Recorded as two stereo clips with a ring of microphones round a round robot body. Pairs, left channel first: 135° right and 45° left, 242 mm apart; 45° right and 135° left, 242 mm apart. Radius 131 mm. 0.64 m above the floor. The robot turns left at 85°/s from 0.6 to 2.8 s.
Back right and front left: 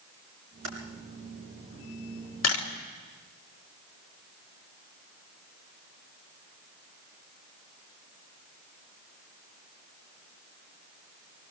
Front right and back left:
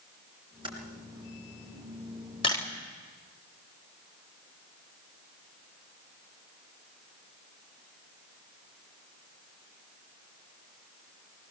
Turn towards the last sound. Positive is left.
turn(degrees=-145)